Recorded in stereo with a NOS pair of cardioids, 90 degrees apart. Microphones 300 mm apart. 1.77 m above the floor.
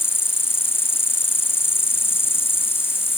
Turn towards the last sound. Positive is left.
turn(degrees=10)